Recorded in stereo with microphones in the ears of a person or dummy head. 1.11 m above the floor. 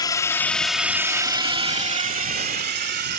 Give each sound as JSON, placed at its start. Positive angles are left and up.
{"t": 0.0, "sound": "a drone", "side_deg": 15}